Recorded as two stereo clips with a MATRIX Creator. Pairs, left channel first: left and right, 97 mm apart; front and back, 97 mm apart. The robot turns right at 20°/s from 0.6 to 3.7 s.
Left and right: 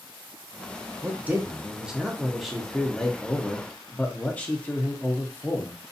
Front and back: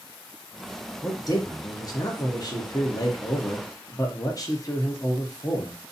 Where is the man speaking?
30° right, 0.6 m; by 5.8 s 25° left, 0.6 m.